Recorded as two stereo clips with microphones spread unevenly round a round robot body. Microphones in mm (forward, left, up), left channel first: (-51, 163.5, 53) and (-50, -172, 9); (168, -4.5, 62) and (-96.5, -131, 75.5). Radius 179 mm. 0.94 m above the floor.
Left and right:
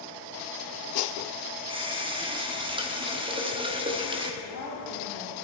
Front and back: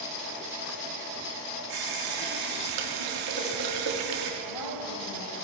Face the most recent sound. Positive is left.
turn(degrees=40)